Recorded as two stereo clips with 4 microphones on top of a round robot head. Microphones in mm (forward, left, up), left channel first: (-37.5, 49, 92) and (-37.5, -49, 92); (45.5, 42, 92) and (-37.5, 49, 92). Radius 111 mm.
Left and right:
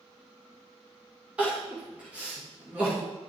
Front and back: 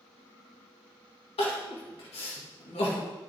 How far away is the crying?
About 2 m.